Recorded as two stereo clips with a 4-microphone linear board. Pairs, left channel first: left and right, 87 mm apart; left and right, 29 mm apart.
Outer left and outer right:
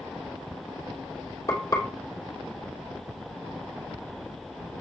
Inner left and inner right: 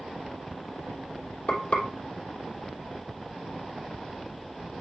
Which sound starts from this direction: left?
Frying, at 1.5 s.